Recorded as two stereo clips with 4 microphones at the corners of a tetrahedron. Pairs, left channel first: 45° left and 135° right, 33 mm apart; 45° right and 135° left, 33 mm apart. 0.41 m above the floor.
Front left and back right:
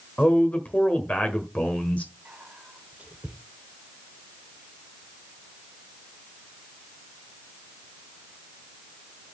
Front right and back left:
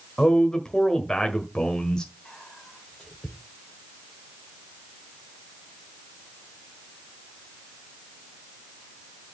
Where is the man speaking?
15° left, 1.5 m.